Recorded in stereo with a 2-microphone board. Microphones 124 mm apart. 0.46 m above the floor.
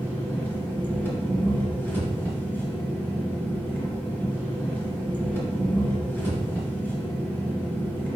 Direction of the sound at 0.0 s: 15° left (ahead or behind).